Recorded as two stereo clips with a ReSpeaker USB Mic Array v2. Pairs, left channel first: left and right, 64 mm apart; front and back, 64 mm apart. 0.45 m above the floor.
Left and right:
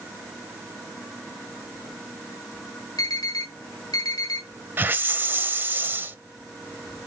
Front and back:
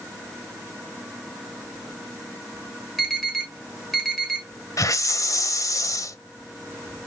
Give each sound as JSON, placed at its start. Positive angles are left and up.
{"t": 3.0, "sound": "an alarm", "azimuth_deg": 90, "distance_m": 4.5}
{"t": 4.8, "sound": "a hiss", "azimuth_deg": -30, "distance_m": 0.7}